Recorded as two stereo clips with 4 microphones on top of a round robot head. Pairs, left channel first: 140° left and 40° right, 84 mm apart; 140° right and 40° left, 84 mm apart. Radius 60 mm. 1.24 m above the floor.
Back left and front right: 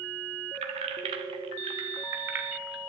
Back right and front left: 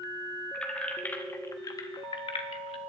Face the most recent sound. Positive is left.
turn(degrees=-125)